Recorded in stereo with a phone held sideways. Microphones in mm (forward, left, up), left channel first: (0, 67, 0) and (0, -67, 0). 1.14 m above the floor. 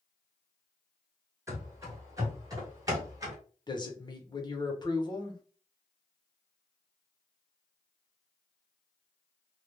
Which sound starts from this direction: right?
Running footsteps, at 1.5 s.